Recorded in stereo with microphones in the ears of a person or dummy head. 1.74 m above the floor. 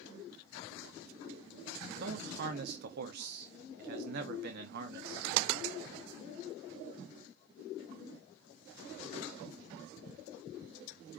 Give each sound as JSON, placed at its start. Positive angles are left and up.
{"t": 1.9, "sound": "a man speaking", "side_deg": -55, "distance_m": 0.8}